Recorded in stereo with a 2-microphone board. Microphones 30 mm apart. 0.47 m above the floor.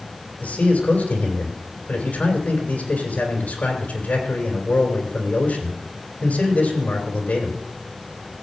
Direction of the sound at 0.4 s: 60° left (ahead or behind).